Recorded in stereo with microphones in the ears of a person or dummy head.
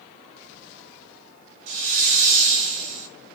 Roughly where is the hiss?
Right.